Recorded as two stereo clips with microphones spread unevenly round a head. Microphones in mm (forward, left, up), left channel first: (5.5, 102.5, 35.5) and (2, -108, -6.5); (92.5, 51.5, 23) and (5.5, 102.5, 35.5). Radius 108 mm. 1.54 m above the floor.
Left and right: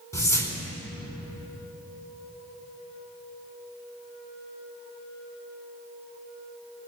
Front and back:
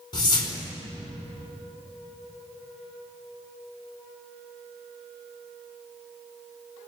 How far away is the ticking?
No ticking in this recording.